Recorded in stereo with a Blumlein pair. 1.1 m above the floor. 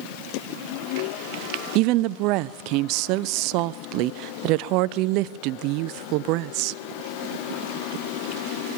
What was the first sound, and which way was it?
A woman speaking, 40° right.